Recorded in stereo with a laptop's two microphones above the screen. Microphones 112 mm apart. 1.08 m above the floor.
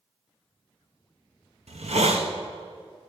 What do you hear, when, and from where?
1.7 s a hiss: 85° right, 1.0 m